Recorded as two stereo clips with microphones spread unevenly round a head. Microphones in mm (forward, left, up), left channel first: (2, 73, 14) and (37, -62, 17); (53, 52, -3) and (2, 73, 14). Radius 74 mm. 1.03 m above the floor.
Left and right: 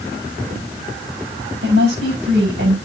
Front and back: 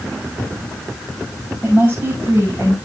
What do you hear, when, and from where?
1.6 s a woman speaking: 95° right, 5.5 m